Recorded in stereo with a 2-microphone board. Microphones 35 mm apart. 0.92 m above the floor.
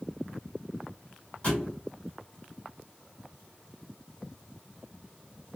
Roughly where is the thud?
Left.